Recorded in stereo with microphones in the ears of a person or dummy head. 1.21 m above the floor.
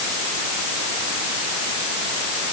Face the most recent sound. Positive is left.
No sound to turn to.